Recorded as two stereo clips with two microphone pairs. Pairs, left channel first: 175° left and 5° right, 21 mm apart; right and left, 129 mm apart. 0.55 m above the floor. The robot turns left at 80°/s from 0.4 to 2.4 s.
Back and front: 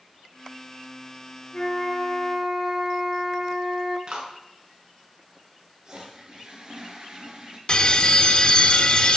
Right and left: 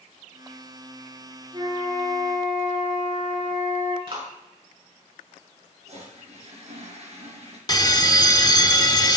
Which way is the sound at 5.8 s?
50° left.